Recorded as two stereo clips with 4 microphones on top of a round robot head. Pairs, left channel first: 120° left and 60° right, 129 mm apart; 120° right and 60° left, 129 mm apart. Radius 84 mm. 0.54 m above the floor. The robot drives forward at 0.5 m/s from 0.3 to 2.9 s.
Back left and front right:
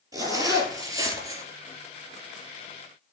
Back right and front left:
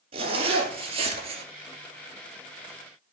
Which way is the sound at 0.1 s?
10° left.